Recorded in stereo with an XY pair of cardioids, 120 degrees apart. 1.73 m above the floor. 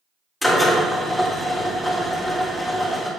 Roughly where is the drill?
Ahead.